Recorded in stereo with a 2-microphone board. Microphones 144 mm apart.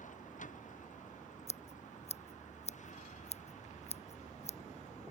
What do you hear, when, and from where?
0.0 s a vehicle: 60° left (ahead or behind); by 5.1 s 55° left (ahead or behind)
1.5 s scissors: 50° left (ahead or behind)